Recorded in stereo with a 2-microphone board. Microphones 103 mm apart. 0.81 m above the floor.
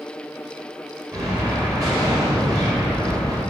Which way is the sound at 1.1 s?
35° right (ahead or behind).